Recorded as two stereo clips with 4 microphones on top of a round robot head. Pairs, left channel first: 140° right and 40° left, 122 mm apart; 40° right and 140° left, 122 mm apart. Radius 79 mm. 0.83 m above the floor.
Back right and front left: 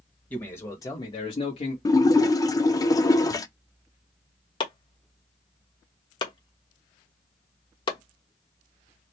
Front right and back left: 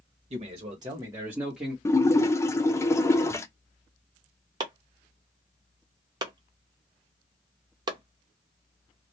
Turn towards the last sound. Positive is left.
turn(degrees=-175)